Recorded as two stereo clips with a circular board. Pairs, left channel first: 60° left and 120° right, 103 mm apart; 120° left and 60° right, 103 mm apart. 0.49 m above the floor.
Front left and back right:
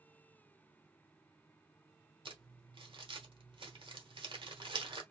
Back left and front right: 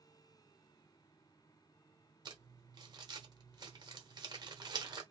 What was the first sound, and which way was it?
Crumpling, 100° right.